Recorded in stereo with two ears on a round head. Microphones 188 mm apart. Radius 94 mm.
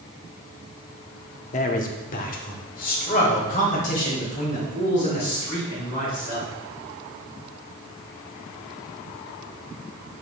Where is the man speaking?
35° left (ahead or behind), 0.7 m; by 6.5 s 40° left (ahead or behind), 4.5 m.